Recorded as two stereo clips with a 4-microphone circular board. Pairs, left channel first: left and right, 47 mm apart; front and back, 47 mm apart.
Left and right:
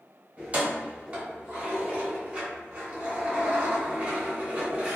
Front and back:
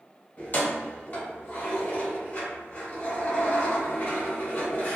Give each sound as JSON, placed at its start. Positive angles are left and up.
{"t": 0.4, "sound": "keys jangling", "azimuth_deg": -35, "distance_m": 1.0}